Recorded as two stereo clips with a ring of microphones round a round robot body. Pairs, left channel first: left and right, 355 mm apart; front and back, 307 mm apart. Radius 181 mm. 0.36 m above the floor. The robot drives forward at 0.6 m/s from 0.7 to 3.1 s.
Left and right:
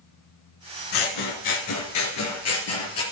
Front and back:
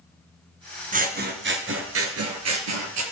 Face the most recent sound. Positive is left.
turn(degrees=145)